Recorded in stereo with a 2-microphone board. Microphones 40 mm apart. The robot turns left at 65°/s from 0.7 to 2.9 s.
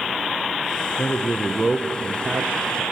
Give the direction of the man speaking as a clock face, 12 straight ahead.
10 o'clock.